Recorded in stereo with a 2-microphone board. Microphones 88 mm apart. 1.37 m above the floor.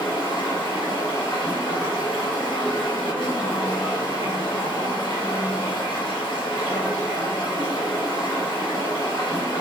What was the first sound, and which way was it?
Running water, 75° left (ahead or behind).